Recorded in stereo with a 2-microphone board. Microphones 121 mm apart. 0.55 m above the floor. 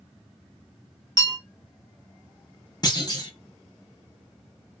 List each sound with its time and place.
1.2 s a bell: 35° right (ahead or behind), 0.9 m
2.8 s a clunk: 35° left (ahead or behind), 0.8 m